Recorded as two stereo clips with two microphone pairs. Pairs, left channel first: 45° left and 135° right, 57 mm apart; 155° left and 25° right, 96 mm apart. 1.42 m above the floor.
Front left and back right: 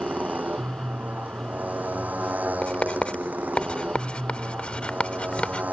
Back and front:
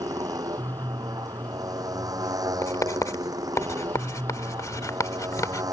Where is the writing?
110° left.